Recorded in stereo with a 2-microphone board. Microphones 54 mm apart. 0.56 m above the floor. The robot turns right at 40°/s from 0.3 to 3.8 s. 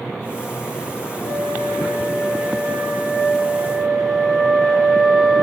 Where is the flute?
105° right, 1.4 m; by 5.5 s straight ahead, 1.4 m.